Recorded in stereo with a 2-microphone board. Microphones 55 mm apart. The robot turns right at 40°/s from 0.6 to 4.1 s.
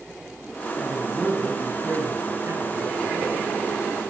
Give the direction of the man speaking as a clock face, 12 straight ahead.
7 o'clock.